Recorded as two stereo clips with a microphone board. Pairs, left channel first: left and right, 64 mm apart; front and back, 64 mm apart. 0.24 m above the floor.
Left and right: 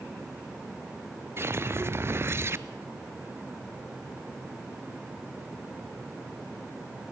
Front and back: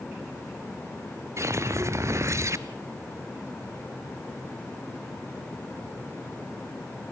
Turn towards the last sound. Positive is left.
turn(degrees=-140)